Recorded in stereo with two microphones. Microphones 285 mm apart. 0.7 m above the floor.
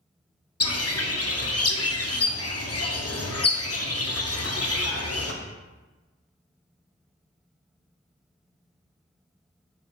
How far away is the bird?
About 0.5 m.